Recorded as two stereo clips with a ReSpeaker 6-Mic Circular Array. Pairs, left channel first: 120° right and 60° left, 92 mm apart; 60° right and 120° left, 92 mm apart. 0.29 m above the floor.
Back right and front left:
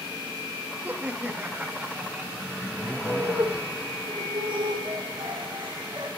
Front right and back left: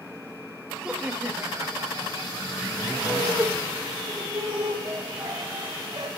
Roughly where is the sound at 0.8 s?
Ahead left.